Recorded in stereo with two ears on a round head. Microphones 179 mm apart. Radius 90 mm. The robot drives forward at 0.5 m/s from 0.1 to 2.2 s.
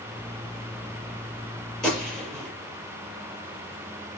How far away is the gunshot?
About 6 m.